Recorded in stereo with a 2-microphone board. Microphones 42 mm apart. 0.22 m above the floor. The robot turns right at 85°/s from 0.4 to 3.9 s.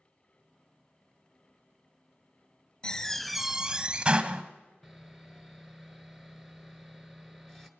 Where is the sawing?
5° left (ahead or behind), 1.3 m.